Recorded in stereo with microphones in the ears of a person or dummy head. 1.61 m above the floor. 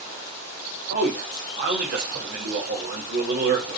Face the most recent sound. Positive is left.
turn(degrees=-55)  # may be behind; listen again after turning